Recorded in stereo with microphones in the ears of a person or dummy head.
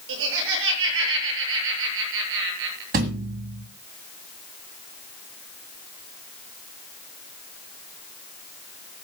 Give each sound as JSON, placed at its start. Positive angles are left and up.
{"t": 0.1, "sound": "laughter", "side_deg": -75, "distance_m": 7.5}
{"t": 2.9, "sound": "a thud", "side_deg": -30, "distance_m": 1.8}